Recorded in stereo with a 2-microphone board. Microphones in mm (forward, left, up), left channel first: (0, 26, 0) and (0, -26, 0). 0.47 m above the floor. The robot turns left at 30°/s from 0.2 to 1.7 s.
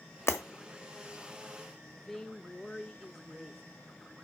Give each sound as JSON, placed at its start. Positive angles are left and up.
{"t": 0.3, "sound": "breaking glass", "side_deg": 60, "distance_m": 1.2}
{"t": 2.0, "sound": "a woman speaking", "side_deg": 5, "distance_m": 0.8}